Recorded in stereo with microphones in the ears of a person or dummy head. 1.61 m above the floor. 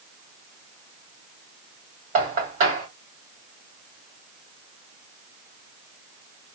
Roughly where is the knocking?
Right.